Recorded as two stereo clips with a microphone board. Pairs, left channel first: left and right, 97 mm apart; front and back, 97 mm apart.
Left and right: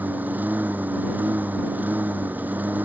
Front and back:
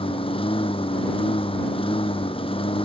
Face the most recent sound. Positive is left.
turn(degrees=-20)